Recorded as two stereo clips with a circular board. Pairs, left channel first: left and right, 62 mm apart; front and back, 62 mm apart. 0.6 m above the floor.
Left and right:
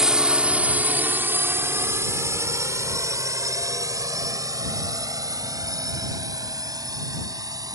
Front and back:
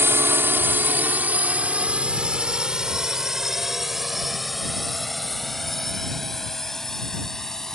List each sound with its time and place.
0.0 s a drone: 165° right; by 7.8 s 85° right